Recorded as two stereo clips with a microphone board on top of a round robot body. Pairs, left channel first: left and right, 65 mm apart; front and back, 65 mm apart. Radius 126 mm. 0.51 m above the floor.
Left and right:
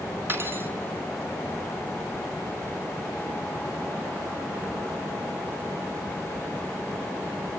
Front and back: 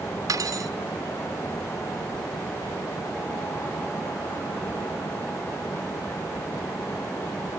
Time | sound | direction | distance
0.3 | cutlery clinking | 150° right | 2.5 m